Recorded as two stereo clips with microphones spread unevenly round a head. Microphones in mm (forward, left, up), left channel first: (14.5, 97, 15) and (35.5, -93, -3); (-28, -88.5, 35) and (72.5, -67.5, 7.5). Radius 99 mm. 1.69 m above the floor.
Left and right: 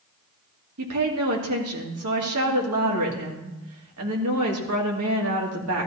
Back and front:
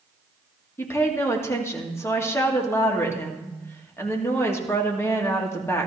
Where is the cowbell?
I don't hear a cowbell.